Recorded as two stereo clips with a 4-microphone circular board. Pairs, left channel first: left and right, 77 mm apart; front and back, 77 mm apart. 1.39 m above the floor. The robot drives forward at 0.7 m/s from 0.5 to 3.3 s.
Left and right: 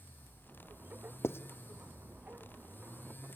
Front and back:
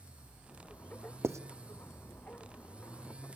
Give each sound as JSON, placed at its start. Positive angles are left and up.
{"t": 1.2, "sound": "writing", "azimuth_deg": 135, "distance_m": 0.6}